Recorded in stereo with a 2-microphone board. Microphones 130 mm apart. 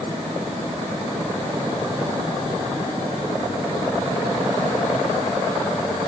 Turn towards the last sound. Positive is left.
No sound to turn to.